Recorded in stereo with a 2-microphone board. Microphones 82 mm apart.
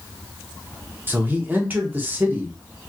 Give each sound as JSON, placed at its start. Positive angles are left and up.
{"t": 1.1, "sound": "a man speaking", "side_deg": -20, "distance_m": 0.9}